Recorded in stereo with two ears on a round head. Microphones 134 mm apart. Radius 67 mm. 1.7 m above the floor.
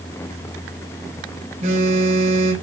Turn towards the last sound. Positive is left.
turn(degrees=-50)  # may be behind; listen again after turning